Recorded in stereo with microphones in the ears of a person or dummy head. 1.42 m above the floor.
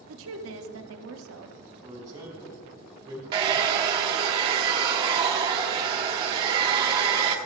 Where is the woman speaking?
70° right (ahead or behind), 0.8 m.